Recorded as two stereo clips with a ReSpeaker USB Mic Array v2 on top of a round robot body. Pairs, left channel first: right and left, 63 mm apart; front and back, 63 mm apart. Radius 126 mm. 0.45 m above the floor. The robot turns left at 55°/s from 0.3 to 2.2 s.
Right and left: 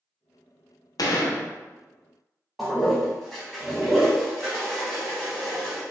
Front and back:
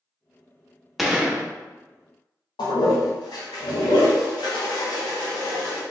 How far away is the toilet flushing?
About 0.9 m.